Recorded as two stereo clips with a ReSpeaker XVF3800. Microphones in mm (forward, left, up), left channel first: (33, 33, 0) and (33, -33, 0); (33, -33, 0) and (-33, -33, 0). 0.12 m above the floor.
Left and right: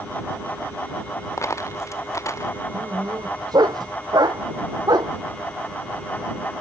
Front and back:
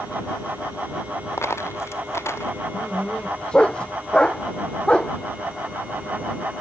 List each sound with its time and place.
1.4 s a dropped coin: 45° left
2.7 s a dog barking: 75° right